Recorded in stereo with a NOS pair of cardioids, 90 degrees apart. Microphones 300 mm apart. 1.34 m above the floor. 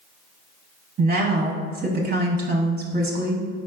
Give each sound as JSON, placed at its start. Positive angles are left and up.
{"t": 1.0, "sound": "a woman speaking", "azimuth_deg": -30, "distance_m": 0.7}